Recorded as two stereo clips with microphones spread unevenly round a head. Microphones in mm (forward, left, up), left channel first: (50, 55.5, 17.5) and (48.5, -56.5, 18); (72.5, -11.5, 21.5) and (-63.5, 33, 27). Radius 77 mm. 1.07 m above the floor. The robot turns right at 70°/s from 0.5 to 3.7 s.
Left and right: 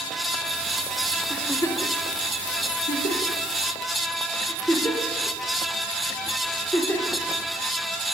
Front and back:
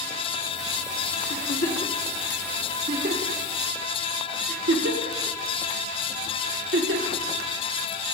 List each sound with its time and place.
1.3 s a giggle: straight ahead, 1.8 m; by 7.2 s 170° left, 1.8 m